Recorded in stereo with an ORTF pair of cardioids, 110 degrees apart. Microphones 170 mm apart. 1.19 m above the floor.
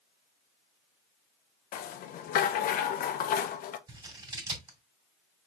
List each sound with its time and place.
1.7 s a rattle: 60° left, 0.8 m
3.9 s scissors: 25° right, 2.5 m